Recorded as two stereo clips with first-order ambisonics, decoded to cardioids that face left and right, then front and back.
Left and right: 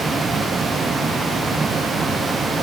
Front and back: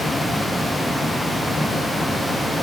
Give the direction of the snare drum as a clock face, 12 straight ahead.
I don't hear a snare drum.